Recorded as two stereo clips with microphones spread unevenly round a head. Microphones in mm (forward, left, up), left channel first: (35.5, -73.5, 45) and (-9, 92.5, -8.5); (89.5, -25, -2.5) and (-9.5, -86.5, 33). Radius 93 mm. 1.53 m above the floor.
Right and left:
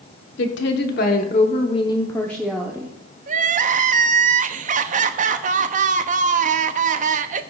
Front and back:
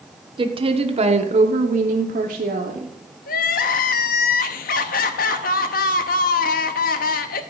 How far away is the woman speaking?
About 1.2 m.